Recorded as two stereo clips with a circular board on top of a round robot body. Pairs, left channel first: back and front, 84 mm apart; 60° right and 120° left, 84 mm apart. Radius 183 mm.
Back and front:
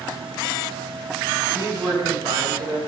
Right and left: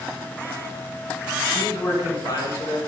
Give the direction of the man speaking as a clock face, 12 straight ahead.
1 o'clock.